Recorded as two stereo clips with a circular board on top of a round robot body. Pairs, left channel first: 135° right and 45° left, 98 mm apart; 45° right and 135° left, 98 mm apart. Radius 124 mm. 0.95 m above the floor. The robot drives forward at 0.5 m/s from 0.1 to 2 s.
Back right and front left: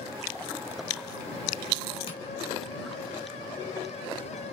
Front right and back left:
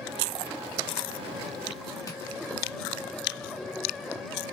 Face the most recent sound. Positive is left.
turn(degrees=-100)